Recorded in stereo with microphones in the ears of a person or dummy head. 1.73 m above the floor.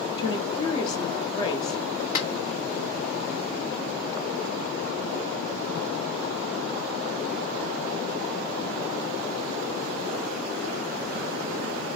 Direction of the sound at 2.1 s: 35° left (ahead or behind).